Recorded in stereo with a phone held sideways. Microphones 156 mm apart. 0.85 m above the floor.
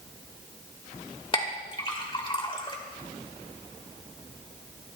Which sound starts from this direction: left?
A clink, at 1.3 s.